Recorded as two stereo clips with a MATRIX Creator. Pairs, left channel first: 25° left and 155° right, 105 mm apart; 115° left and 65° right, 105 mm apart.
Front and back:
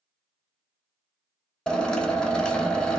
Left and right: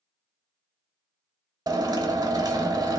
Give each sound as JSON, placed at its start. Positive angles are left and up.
{"t": 1.7, "sound": "a drill", "azimuth_deg": -55, "distance_m": 0.6}